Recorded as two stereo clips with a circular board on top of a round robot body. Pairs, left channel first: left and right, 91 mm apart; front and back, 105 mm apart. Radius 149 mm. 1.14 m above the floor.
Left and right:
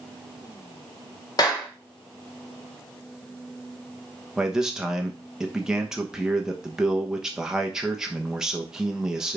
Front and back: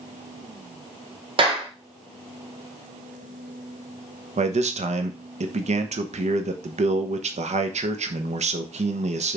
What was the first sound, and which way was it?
A clap, 140° left.